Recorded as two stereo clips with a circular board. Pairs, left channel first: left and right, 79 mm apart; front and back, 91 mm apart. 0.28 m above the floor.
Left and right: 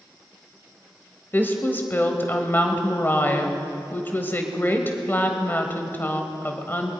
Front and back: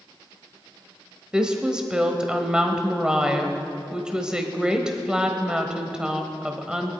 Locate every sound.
1.3 s a woman speaking: 110° left, 1.1 m